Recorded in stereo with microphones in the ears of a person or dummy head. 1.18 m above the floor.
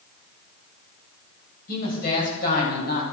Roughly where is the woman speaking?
Left.